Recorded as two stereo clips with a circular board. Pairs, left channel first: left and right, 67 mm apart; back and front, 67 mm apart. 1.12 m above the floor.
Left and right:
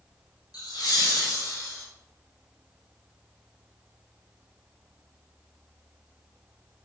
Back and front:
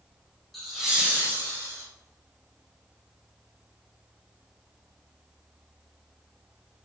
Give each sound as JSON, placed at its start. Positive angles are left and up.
{"t": 0.5, "sound": "laughter", "azimuth_deg": 90, "distance_m": 0.9}